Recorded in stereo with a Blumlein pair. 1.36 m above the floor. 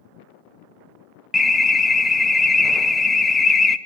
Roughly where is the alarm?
Ahead.